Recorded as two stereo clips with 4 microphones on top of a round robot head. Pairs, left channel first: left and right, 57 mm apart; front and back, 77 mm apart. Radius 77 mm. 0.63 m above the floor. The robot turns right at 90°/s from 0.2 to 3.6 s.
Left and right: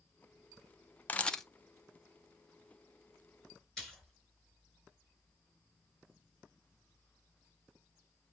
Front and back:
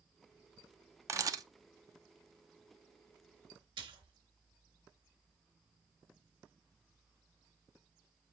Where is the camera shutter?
145° left, 0.9 m; by 1.4 s 175° left, 0.9 m.